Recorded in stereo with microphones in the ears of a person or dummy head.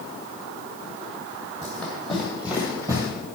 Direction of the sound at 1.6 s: 10° left (ahead or behind).